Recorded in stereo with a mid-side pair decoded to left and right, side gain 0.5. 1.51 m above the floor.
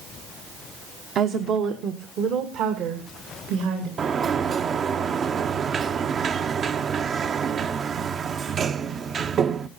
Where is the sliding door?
45° right, 0.9 m.